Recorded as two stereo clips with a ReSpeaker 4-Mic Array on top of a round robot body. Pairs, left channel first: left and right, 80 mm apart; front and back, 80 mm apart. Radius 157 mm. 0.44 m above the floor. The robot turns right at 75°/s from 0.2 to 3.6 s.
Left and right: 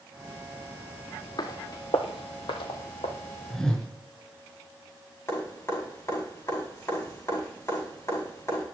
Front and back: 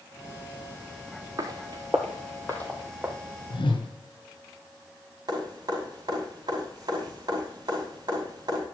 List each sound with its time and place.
1.4 s footsteps: 130° left, 0.9 m; by 3.1 s 105° left, 1.6 m
3.5 s a whoosh: straight ahead, 3 m; by 3.9 s 10° left, 3 m
5.3 s dripping: 145° left, 5.5 m